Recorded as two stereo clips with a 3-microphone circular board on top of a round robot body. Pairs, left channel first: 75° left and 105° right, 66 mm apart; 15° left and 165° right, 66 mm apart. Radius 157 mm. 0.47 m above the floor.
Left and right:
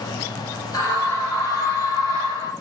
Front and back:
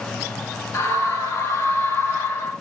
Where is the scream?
55° left, 5.5 m; by 2.5 s 70° left, 5 m.